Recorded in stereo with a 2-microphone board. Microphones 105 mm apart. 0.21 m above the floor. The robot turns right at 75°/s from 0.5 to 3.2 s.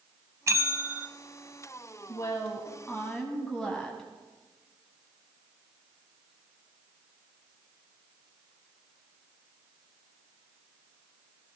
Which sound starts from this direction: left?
A woman speaking, at 2.1 s.